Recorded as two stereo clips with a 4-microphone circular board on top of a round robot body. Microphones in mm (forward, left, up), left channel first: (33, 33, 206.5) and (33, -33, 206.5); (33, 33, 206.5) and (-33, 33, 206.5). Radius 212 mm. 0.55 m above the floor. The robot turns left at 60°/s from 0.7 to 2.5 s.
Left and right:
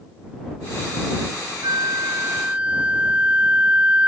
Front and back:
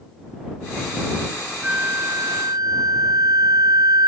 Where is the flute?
110° right; by 4.1 s 160° right.